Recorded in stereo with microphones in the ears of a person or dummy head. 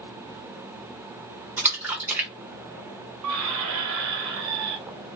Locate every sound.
1.6 s a splash: 5° right (ahead or behind), 0.6 m
3.2 s a squeak: 80° right, 0.6 m